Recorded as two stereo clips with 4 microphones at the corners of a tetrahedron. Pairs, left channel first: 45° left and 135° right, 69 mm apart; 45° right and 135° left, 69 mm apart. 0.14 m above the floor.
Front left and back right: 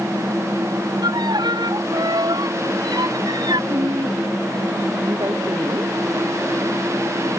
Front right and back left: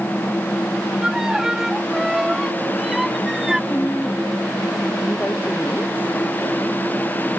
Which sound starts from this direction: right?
A woman speaking, at 3.7 s.